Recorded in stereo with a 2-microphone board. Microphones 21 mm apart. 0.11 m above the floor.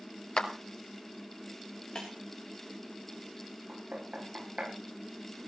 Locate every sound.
0.4 s a clap: 45° left (ahead or behind), 1.9 m
1.9 s breaking glass: 40° left (ahead or behind), 6.5 m
3.7 s knocking: 45° right (ahead or behind), 9.5 m